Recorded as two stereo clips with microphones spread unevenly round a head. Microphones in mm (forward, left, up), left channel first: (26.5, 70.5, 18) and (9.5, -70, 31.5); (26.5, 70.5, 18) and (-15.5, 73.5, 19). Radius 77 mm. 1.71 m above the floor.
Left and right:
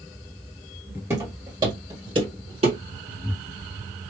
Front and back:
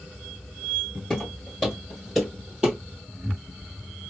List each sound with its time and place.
1.1 s footsteps: 75° right, 1.8 m; by 2.8 s 105° right, 2.5 m